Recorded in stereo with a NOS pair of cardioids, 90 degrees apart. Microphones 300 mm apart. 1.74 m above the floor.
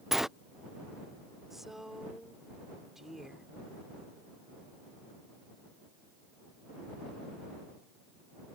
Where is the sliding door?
Straight ahead.